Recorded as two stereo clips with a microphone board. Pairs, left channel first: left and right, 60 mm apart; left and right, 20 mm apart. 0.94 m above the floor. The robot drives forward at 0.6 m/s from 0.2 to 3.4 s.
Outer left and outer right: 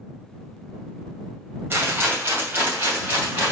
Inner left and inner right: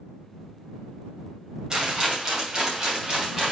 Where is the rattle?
35° right (ahead or behind), 2.5 m; by 3.5 s 25° right (ahead or behind), 3.5 m.